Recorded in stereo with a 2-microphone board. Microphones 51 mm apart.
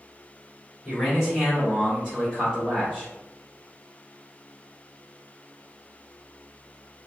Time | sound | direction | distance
0.8 | a man speaking | 15° right (ahead or behind) | 1.6 m